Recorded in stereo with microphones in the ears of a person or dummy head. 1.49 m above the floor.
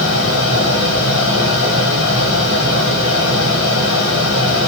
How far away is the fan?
About 1.8 m.